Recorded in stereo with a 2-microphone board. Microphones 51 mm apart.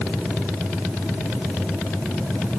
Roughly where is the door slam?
No door slam in this recording.